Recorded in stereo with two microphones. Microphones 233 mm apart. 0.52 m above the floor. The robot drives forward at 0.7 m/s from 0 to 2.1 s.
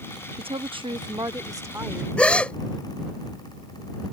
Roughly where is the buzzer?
No buzzer in this recording.